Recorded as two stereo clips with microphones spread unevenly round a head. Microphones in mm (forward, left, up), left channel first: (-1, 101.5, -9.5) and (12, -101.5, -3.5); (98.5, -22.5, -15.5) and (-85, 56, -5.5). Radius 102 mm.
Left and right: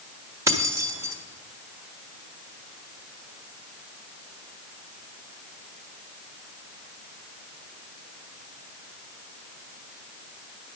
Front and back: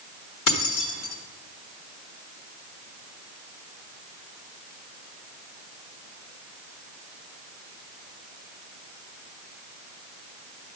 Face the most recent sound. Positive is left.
turn(degrees=-10)